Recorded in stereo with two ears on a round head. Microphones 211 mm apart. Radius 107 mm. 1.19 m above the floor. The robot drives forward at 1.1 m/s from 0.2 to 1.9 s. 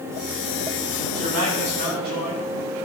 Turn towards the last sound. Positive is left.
turn(degrees=-90)